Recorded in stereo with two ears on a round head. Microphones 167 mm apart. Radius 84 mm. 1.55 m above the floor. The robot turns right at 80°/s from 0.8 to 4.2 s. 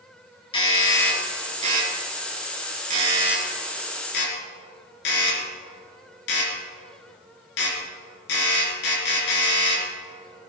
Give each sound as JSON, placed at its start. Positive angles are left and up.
{"t": 0.5, "sound": "a doorbell", "side_deg": 30, "distance_m": 4.0}